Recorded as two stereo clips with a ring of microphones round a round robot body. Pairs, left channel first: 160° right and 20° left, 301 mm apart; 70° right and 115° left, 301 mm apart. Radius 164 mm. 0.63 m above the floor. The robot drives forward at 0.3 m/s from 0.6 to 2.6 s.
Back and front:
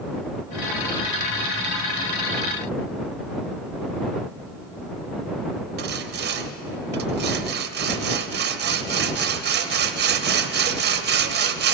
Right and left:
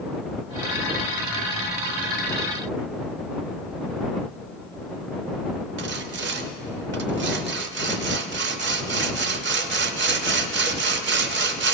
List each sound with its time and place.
5.8 s sawing: 70° left, 0.6 m